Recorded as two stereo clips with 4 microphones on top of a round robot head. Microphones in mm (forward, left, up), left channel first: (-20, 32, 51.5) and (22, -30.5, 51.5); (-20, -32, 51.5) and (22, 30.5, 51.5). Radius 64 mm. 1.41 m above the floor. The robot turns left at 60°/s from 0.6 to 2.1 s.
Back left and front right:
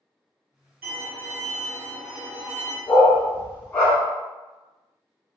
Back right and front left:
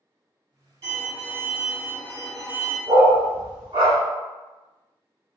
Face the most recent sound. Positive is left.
turn(degrees=70)